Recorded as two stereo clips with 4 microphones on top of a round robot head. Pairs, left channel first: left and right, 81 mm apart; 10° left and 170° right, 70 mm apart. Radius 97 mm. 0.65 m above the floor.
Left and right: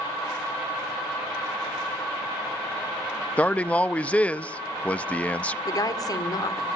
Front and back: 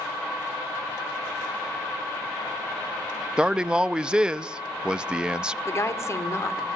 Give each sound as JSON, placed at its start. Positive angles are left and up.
{"t": 3.4, "sound": "a man speaking", "azimuth_deg": 130, "distance_m": 0.6}
{"t": 5.7, "sound": "a woman speaking", "azimuth_deg": 50, "distance_m": 2.0}